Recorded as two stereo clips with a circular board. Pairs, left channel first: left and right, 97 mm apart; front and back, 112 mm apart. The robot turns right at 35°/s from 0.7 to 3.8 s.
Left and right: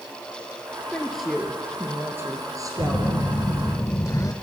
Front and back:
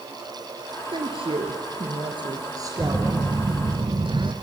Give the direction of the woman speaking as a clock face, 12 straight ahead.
6 o'clock.